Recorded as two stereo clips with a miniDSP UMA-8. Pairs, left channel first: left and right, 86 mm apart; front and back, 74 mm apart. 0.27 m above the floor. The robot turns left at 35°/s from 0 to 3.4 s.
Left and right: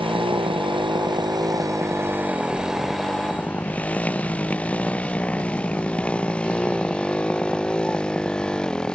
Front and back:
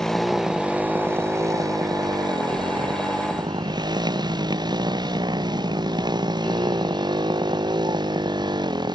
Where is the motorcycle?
80° right; by 8.9 s 170° left.